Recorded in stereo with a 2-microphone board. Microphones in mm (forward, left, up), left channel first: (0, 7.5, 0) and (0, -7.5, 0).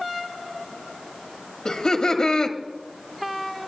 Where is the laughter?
50° left (ahead or behind), 1.1 m.